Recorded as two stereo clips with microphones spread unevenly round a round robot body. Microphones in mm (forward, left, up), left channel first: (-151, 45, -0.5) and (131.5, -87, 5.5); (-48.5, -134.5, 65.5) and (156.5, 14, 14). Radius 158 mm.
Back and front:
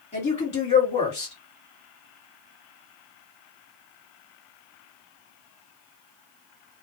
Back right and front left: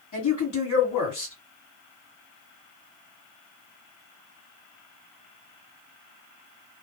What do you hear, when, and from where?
0.1 s a woman speaking: 135° right, 1.9 m